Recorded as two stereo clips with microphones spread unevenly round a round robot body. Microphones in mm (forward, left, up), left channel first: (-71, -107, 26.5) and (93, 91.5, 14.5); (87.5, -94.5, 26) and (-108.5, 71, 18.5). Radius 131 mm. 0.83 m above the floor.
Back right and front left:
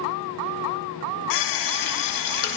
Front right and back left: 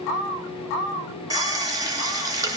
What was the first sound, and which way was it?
A running tap, 145° right.